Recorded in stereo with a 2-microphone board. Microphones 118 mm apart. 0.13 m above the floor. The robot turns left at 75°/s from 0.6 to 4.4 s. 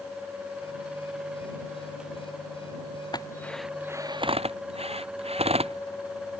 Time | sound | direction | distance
3.1 | a drill | 35° left (ahead or behind) | ?